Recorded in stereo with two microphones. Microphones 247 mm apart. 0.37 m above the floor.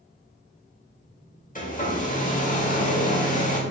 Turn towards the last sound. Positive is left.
turn(degrees=30)  # may be behind; listen again after turning